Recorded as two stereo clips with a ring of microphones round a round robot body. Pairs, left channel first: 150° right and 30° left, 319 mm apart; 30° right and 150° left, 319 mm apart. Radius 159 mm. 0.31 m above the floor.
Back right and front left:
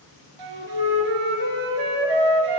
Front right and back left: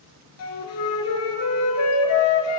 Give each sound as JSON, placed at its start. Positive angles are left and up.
{"t": 0.4, "sound": "a flute", "azimuth_deg": 15, "distance_m": 2.0}